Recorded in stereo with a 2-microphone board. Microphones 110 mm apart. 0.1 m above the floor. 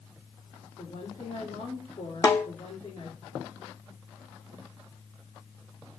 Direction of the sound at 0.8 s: 55° left (ahead or behind).